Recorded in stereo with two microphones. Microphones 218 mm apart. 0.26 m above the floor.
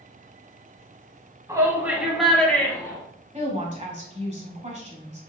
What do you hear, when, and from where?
1.5 s a shout: 15° right (ahead or behind), 1.5 m; by 3.0 s 15° left (ahead or behind), 1.6 m
3.3 s a woman speaking: 30° right (ahead or behind), 1.5 m